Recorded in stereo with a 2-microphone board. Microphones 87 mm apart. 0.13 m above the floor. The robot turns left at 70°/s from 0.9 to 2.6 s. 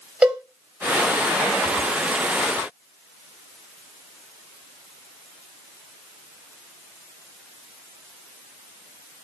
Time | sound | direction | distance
0.2 | a cowbell | 20° right (ahead or behind) | 4 m